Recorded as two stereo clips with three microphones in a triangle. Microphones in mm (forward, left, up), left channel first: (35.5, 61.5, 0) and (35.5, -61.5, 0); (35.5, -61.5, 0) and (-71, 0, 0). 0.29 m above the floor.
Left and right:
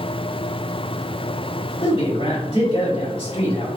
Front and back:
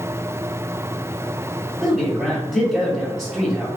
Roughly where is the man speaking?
Ahead left.